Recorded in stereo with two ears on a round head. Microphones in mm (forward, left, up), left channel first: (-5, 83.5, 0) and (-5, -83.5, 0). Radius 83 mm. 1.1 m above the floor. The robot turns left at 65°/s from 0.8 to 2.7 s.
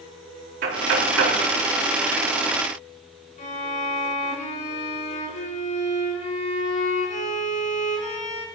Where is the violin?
45° left (ahead or behind), 3.5 m.